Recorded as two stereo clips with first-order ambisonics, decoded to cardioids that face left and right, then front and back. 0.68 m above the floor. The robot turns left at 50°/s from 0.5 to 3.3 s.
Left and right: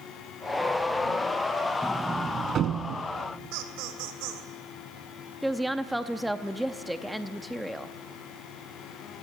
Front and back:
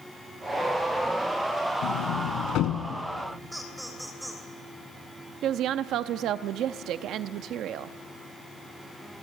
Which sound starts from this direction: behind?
A woman speaking, at 5.4 s.